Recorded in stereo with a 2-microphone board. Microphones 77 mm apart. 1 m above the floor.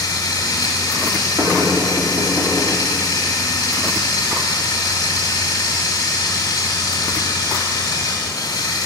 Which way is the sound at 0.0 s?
65° left (ahead or behind).